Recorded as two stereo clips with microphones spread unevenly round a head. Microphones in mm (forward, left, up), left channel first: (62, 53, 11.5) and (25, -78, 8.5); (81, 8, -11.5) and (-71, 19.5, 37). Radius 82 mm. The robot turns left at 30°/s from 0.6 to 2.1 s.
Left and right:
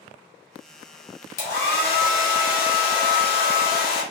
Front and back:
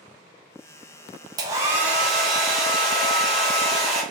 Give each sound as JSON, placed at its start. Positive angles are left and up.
{"t": 1.4, "sound": "a hair dryer", "azimuth_deg": 105, "distance_m": 1.2}